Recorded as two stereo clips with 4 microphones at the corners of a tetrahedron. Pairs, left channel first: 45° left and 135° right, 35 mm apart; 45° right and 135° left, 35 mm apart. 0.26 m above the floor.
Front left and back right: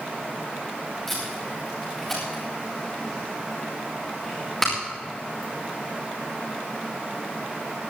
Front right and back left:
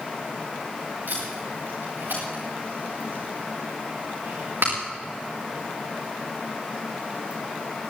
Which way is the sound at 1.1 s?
130° left.